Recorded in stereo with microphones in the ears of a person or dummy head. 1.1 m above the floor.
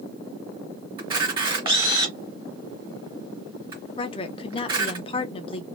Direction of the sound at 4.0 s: 25° left (ahead or behind).